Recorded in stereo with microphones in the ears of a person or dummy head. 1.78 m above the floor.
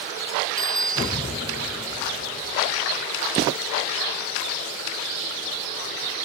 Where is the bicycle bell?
Centre (ahead or behind).